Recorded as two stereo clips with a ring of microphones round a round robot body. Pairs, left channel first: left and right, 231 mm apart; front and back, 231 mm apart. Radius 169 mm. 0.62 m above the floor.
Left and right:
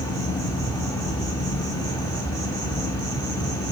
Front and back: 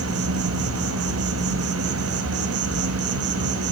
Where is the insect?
170° left, 1.2 m.